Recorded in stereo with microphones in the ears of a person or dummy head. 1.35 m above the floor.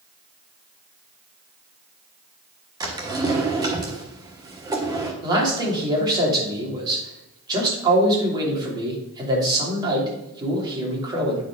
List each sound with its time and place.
2.8 s a drawer: 15° right (ahead or behind), 1.2 m
5.2 s a man speaking: 25° right (ahead or behind), 3 m